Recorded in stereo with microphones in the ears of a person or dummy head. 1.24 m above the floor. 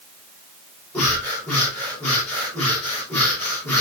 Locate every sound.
0.9 s breathing: 10° left (ahead or behind), 5.5 m